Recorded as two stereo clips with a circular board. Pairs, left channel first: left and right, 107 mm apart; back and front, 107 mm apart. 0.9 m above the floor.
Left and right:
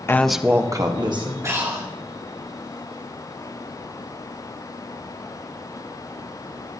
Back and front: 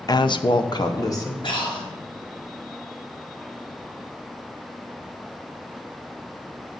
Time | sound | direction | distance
0.1 | a woman speaking | 145° left | 0.5 m
1.4 | breathing | 150° right | 2 m